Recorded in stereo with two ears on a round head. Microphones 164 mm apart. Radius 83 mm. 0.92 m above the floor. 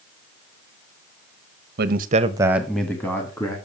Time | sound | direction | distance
1.8 | a man speaking | 55° right (ahead or behind) | 0.8 m